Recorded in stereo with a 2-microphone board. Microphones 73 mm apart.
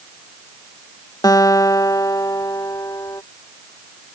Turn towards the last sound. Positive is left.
turn(degrees=60)  # may be behind; listen again after turning